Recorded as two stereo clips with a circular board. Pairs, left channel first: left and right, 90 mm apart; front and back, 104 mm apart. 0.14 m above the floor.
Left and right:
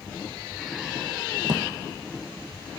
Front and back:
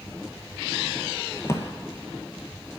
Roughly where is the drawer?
Ahead right.